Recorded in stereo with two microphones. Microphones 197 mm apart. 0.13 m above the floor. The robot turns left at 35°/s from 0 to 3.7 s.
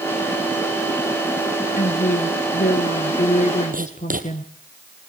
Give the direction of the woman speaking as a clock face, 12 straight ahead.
8 o'clock.